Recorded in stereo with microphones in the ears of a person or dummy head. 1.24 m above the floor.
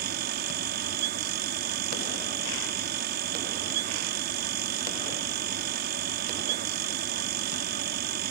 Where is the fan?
50° right (ahead or behind).